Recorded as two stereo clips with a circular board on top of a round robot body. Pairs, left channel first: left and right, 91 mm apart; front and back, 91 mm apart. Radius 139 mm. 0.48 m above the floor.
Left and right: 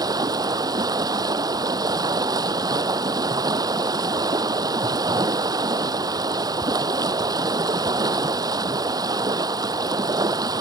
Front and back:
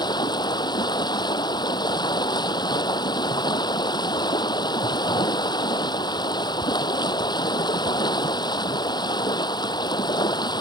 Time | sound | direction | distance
0.0 | running water | 40° right | ?